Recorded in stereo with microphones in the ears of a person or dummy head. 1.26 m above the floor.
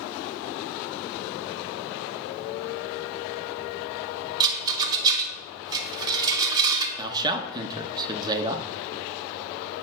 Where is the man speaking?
20° right (ahead or behind), 0.9 m.